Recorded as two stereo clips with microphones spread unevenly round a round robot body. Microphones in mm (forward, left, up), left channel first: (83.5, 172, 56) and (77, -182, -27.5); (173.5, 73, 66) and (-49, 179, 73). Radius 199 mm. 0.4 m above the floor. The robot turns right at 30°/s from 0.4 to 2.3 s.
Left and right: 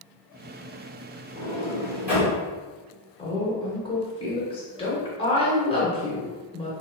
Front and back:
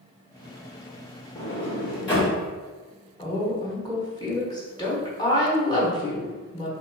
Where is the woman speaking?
Straight ahead, 1.2 m.